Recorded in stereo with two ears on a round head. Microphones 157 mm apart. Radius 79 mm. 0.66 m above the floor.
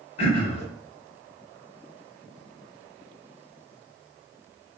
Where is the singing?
No singing in this recording.